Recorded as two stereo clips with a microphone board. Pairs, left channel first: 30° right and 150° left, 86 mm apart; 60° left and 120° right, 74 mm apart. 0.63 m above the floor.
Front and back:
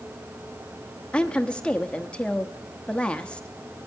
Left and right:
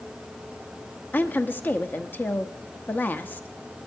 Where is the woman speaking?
35° left, 0.8 m.